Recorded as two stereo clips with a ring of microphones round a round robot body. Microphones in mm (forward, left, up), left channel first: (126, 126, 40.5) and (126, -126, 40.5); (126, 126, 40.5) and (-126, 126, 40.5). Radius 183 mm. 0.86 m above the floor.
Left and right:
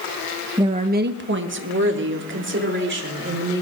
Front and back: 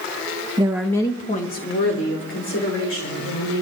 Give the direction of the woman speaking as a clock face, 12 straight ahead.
5 o'clock.